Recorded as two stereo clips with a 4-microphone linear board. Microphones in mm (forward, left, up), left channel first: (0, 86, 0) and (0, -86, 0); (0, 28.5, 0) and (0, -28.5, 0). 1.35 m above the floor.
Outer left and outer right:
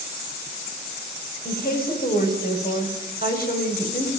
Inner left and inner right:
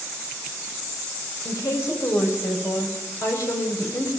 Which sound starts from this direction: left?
A woman speaking, at 1.4 s.